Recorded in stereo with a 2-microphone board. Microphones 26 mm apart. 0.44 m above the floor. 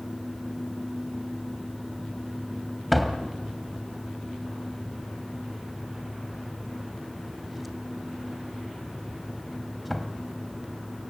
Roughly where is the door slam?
Centre.